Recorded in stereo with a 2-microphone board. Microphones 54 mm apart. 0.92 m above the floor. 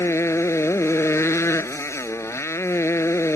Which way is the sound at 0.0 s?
55° left (ahead or behind).